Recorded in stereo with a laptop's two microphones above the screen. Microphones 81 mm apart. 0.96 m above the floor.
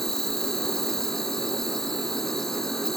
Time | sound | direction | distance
0.0 | an insect | 5° left (ahead or behind) | ?